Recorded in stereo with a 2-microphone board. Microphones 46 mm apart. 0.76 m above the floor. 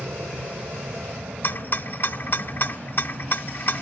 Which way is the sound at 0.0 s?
65° right (ahead or behind).